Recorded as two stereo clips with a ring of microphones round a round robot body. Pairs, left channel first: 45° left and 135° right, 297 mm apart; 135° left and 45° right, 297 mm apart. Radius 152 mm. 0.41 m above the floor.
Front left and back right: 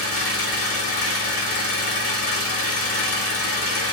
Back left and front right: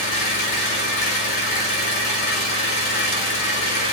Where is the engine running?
90° left, 0.9 m.